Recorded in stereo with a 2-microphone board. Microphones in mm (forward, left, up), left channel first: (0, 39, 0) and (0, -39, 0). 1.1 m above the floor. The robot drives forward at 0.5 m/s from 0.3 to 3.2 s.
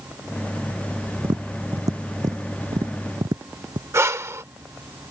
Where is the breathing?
35° right (ahead or behind).